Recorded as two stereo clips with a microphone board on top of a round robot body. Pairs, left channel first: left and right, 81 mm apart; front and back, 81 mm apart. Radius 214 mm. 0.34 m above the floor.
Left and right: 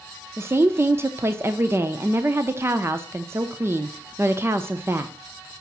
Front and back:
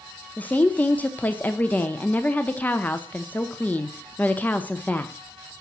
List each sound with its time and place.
0.4 s a woman speaking: 60° right, 1.1 m